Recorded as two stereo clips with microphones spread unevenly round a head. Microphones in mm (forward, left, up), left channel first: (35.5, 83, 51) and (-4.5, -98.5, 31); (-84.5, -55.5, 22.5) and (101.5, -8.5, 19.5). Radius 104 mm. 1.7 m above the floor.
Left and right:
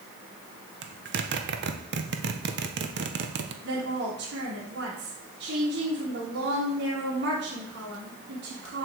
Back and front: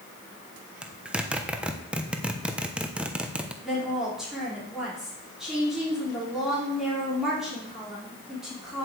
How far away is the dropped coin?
I don't hear a dropped coin.